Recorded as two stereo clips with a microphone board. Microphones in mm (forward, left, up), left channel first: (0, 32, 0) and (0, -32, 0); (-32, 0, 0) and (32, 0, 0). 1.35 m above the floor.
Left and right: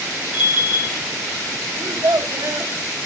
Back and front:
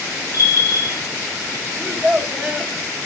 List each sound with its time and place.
0.3 s a bell: 160° right, 3.5 m
1.8 s a child speaking: 85° right, 1.4 m